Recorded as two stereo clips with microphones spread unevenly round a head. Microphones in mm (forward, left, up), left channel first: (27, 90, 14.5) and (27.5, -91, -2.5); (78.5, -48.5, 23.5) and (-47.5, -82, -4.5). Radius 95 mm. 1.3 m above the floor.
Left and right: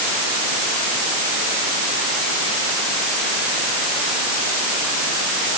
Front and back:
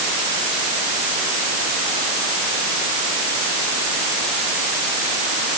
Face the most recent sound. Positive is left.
No sound to turn to.